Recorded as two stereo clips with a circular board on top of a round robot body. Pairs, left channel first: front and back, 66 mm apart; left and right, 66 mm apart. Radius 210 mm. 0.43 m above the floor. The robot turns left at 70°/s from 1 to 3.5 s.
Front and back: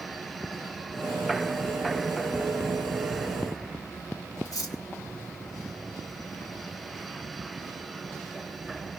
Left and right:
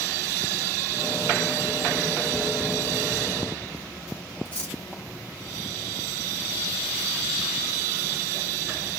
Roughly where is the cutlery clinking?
Ahead left.